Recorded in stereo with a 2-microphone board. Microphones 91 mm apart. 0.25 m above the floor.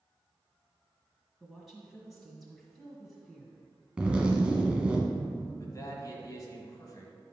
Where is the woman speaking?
Centre (ahead or behind), 1.6 m.